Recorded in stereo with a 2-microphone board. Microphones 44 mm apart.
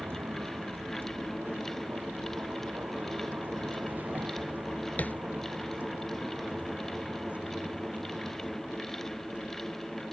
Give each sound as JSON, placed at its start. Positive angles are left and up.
{"t": 0.0, "sound": "a vehicle", "side_deg": -55}
{"t": 5.0, "sound": "tapping", "side_deg": 40}